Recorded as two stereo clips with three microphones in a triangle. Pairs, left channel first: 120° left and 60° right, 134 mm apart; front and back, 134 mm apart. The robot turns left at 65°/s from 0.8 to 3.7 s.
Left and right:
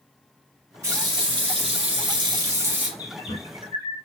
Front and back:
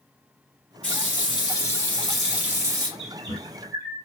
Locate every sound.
0.8 s a running tap: 5° right, 1.2 m; by 2.9 s 135° right, 1.2 m
3.0 s a bird: 170° left, 1.0 m; by 4.0 s 120° left, 1.0 m